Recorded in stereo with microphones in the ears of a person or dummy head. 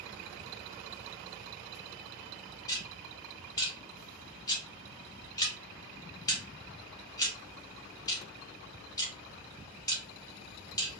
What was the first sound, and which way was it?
Ticking, 20° left (ahead or behind).